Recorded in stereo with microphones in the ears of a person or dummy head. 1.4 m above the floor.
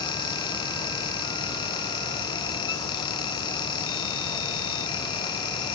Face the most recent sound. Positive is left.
No sound to turn to.